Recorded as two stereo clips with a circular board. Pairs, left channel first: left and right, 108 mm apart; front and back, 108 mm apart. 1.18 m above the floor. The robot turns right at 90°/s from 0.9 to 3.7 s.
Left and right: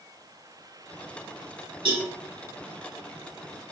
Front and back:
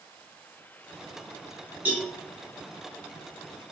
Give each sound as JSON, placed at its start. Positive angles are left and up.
{"t": 1.9, "sound": "a cowbell", "azimuth_deg": -110, "distance_m": 1.6}